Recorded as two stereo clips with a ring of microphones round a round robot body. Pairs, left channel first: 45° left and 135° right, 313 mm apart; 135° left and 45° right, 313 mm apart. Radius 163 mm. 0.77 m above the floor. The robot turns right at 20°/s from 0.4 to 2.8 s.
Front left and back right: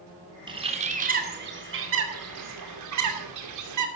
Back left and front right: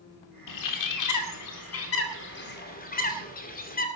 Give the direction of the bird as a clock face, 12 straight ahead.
7 o'clock.